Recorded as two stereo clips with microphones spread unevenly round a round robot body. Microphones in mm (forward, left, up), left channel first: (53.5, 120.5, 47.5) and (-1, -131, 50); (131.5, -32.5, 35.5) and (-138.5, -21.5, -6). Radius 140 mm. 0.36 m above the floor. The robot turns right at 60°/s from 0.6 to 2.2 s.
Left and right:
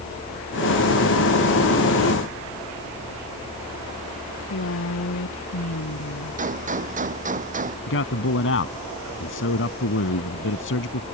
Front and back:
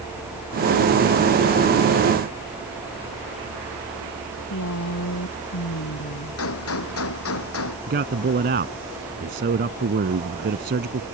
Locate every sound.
4.3 s a woman speaking: 40° left
6.4 s a gunshot: 40° right
7.9 s a man speaking: 120° left